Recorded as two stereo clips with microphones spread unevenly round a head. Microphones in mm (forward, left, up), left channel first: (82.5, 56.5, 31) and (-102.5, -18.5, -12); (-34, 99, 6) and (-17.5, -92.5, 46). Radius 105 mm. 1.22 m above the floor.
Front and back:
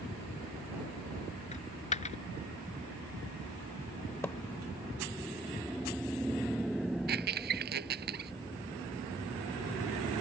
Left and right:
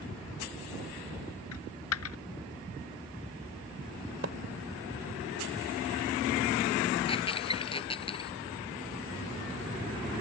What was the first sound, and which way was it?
A dropped coin, 70° left.